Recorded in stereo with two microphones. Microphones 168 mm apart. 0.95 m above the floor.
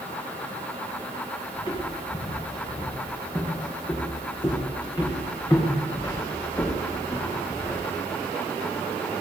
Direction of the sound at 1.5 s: 30° left (ahead or behind).